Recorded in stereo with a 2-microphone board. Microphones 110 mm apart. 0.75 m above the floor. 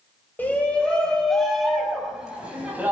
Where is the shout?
15° left (ahead or behind), 4 m; by 2.9 s 15° right (ahead or behind), 6 m.